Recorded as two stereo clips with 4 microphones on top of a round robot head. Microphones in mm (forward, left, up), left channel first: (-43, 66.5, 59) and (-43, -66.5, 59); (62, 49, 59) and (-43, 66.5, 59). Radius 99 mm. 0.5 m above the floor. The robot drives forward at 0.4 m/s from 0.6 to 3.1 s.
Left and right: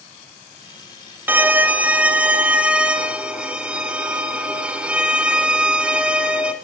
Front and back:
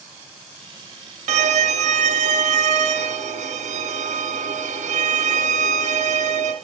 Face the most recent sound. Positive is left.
turn(degrees=-170)